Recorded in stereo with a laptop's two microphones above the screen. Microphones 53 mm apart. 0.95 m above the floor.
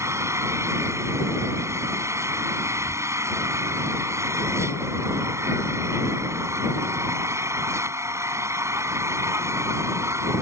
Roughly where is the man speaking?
No man speaking in this recording.